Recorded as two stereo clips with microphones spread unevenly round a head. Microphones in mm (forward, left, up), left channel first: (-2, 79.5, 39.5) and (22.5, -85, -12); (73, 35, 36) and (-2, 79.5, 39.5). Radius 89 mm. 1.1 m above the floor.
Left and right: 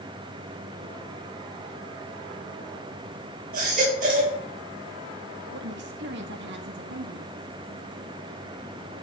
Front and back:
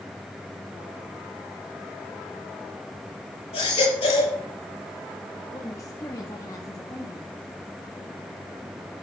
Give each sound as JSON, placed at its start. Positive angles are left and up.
{"t": 3.5, "sound": "a baby crying", "azimuth_deg": -40, "distance_m": 8.0}
{"t": 5.5, "sound": "a woman speaking", "azimuth_deg": -95, "distance_m": 1.6}